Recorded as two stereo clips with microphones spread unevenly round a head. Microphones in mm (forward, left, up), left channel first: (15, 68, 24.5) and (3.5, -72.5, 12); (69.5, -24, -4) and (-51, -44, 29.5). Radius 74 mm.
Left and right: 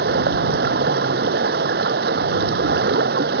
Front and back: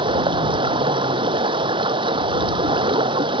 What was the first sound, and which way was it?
Running water, 125° right.